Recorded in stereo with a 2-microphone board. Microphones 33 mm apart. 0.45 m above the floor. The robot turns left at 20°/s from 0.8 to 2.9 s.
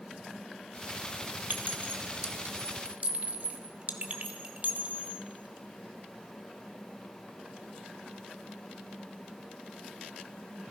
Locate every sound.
1.5 s a clink: 60° right (ahead or behind), 1.1 m; by 5.2 s 40° right (ahead or behind), 1.1 m